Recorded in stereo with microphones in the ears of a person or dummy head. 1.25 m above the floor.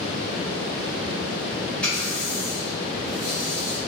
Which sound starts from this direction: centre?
A running tap, at 1.8 s.